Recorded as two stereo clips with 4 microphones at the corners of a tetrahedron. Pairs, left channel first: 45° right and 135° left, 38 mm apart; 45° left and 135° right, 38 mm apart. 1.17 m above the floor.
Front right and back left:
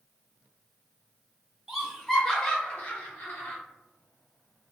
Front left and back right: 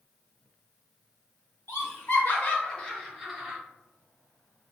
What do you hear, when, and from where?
1.7 s laughter: 50° left, 1.1 m; by 3.6 s 60° right, 1.0 m